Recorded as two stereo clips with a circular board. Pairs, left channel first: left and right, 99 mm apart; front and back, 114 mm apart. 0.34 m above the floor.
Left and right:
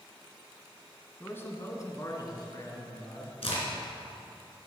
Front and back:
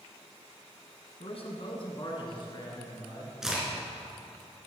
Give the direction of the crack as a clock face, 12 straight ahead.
9 o'clock.